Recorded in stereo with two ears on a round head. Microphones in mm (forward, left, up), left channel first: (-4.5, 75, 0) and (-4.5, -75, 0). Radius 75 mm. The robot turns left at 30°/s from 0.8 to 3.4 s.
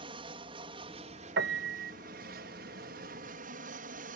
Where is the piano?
70° right (ahead or behind); by 1.9 s 55° right (ahead or behind).